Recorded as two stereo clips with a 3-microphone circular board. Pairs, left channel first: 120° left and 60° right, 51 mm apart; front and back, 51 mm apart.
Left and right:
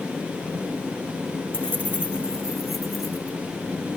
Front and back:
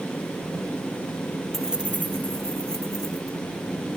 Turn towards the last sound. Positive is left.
turn(degrees=-160)